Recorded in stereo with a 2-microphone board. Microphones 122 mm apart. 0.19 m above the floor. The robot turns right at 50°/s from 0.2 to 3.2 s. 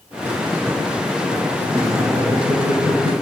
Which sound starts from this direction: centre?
Laughter, at 1.6 s.